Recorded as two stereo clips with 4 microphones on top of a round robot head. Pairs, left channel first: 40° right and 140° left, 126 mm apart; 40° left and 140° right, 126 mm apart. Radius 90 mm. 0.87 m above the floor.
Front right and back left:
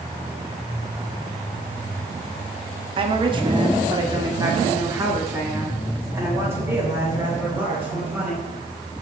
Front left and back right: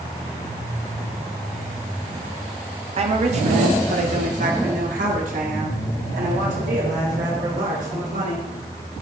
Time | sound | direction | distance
3.0 | a woman speaking | 175° right | 1.7 m